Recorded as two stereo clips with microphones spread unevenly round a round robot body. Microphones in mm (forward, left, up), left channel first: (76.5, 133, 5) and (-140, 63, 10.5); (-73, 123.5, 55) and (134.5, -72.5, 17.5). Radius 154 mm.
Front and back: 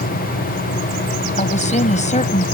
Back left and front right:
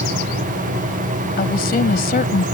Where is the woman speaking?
75° left.